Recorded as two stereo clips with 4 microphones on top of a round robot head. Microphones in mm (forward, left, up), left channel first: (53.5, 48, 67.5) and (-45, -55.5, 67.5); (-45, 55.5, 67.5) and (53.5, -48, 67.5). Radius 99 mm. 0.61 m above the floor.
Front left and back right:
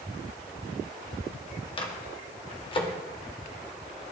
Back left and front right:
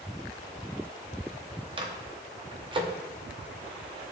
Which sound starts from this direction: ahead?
A microwave, at 1.8 s.